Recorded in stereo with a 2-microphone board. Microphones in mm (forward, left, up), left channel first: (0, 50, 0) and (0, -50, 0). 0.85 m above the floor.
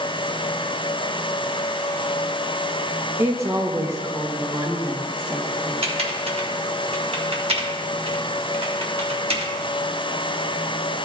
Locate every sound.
3.2 s a woman speaking: 25° right (ahead or behind), 0.7 m
5.8 s typing on a keyboard: 75° right (ahead or behind), 1.2 m